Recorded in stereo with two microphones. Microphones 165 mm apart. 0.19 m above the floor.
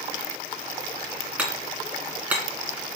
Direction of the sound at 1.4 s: 10° right (ahead or behind).